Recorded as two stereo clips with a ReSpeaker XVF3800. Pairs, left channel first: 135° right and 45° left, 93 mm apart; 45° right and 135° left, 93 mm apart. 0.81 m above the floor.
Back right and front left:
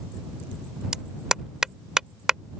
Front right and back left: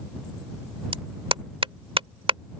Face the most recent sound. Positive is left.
turn(degrees=130)